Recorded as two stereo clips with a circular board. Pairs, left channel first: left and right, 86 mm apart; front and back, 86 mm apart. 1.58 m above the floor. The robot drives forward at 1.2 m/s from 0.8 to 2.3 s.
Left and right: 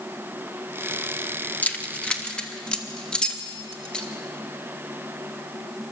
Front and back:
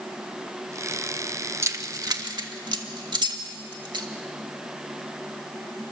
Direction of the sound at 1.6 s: 150° left.